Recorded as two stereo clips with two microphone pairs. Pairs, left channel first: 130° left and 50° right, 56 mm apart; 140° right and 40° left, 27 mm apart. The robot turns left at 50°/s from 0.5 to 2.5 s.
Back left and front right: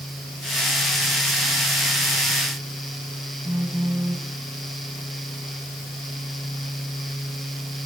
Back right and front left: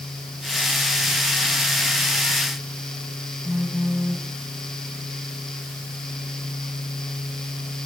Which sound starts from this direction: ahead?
A phone buzzing, at 3.5 s.